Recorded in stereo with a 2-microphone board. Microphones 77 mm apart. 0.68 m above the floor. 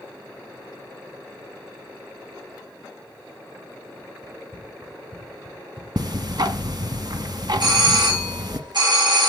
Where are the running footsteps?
10° right (ahead or behind), 2.5 m; by 5.9 s 25° right (ahead or behind), 3.5 m.